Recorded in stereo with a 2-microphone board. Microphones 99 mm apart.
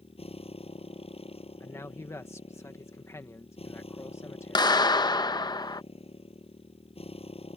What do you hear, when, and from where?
0.0 s a motorcycle: 80° left
1.6 s a man speaking: 30° left (ahead or behind)
4.5 s a clap: 45° left (ahead or behind)